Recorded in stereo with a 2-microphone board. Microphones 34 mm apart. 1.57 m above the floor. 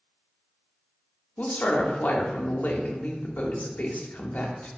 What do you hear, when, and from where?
1.4 s a woman speaking: 55° left (ahead or behind), 0.5 m